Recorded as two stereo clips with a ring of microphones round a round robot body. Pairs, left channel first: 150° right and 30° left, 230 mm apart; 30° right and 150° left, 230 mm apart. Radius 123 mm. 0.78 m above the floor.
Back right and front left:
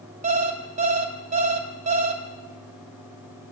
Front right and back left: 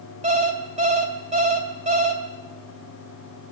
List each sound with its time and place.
0.2 s an alarm clock: 90° left, 2 m